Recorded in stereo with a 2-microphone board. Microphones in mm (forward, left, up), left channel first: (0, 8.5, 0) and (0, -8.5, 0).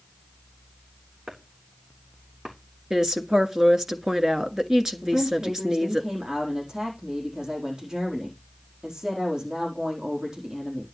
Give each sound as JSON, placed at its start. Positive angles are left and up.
{"t": 1.3, "sound": "chopping", "side_deg": -65, "distance_m": 3.5}
{"t": 2.9, "sound": "a woman speaking", "side_deg": -35, "distance_m": 1.4}
{"t": 5.0, "sound": "a woman speaking", "side_deg": -45, "distance_m": 4.5}